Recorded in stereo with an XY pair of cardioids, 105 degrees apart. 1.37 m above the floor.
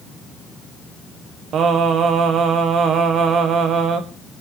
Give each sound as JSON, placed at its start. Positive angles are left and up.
{"t": 1.5, "sound": "singing", "azimuth_deg": -65, "distance_m": 1.4}